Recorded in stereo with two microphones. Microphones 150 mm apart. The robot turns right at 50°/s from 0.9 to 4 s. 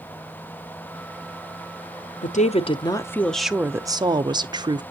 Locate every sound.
2.2 s a woman speaking: 120° left, 0.7 m; by 4.8 s 150° right, 0.7 m